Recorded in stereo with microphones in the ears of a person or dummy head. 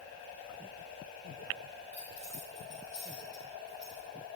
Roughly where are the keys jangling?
Centre.